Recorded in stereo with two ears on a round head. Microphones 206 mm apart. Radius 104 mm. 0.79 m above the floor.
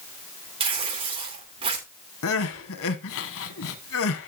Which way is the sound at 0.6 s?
25° right (ahead or behind).